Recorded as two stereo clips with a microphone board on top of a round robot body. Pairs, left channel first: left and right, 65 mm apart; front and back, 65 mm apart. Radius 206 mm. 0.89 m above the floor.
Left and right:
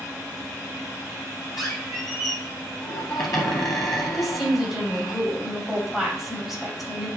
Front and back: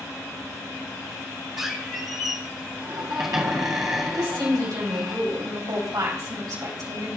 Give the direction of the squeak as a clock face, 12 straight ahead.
8 o'clock.